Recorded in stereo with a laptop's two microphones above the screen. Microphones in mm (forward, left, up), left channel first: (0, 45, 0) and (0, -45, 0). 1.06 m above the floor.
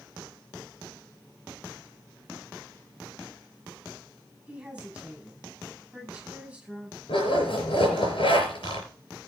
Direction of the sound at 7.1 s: 80° left.